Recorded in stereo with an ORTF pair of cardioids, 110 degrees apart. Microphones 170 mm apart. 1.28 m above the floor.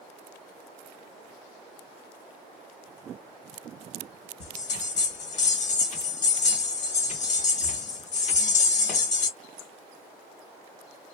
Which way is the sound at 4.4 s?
45° left.